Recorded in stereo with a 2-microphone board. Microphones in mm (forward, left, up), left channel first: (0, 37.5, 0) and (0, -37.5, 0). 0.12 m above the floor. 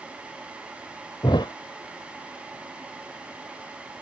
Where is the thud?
85° left, 0.6 m.